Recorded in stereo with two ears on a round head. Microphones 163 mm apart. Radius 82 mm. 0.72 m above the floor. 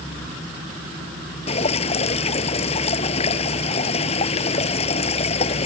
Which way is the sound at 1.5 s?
35° left (ahead or behind).